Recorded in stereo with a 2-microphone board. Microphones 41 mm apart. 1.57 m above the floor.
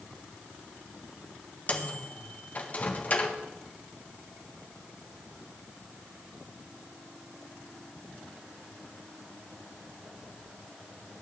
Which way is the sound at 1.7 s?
35° left (ahead or behind).